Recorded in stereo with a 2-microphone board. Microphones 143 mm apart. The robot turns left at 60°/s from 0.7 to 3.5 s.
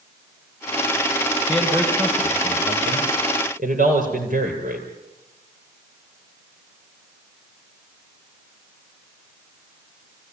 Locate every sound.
1.5 s a man speaking: 20° left, 6 m; by 4.9 s 105° right, 6 m